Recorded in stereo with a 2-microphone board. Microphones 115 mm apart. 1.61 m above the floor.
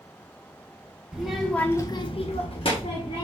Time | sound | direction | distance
1.1 | a child speaking | 5° right (ahead or behind) | 1.3 m